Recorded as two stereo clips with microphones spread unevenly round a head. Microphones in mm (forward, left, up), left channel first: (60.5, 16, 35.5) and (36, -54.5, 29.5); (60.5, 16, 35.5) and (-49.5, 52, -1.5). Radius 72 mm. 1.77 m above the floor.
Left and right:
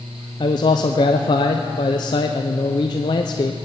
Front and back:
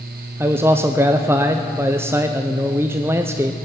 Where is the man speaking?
80° left, 0.6 m.